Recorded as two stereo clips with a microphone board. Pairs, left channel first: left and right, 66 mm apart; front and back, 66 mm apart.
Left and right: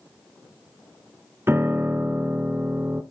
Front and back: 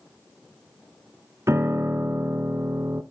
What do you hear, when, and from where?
1.5 s a piano: 140° right, 0.9 m